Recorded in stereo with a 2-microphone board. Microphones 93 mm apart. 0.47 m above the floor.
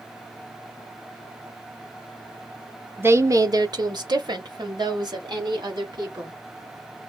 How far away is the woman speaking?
About 1.0 m.